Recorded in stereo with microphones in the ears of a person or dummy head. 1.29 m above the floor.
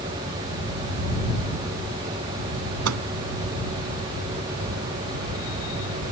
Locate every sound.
2.9 s a microwave: 85° right